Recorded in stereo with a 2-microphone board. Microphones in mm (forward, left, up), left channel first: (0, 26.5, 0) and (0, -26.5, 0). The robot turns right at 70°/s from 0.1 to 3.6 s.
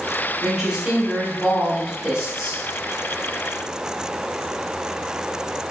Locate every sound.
0.4 s a woman speaking: 5° right (ahead or behind), 1.1 m